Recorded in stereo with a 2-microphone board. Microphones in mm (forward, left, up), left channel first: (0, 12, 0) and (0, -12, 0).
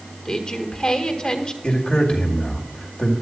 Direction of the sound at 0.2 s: 40° left (ahead or behind).